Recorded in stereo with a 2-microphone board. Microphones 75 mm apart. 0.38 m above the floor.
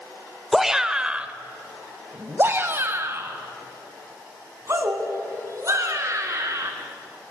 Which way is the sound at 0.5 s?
Centre (ahead or behind).